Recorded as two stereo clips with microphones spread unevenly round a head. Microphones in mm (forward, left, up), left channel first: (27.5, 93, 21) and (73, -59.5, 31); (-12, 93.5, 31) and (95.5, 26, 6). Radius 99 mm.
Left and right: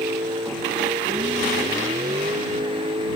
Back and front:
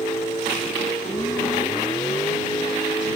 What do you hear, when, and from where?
0.0 s a vehicle: 145° right; by 3.2 s 140° right